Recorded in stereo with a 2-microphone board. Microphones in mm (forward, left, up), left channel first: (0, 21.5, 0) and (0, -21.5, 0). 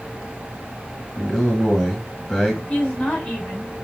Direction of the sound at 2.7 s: 30° left (ahead or behind).